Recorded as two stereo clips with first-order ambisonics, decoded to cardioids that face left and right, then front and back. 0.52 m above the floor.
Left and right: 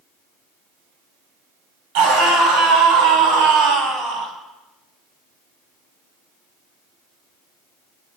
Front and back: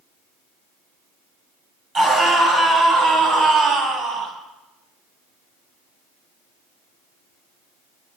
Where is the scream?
115° right, 5 m; by 4.3 s 135° right, 4.5 m.